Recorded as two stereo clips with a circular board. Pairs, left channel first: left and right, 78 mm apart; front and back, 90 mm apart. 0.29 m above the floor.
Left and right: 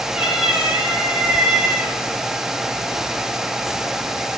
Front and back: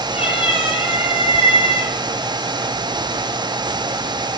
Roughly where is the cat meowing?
Ahead.